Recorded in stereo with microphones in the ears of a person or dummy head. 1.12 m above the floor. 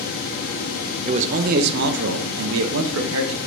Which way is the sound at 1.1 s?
30° right (ahead or behind).